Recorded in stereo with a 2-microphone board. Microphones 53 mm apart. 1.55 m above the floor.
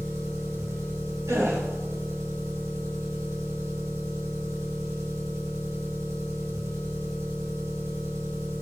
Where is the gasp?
85° right, 3.5 m.